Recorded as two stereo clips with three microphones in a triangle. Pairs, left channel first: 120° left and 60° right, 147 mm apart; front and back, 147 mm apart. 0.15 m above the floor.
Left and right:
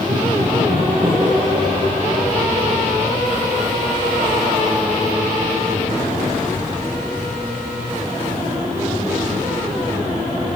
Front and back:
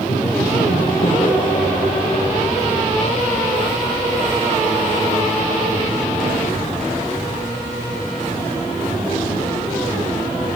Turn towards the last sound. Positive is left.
turn(degrees=20)